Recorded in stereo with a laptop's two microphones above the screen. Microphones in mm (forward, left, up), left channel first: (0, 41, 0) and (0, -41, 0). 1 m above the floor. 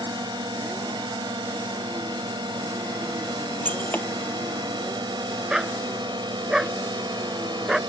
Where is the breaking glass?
20° left (ahead or behind).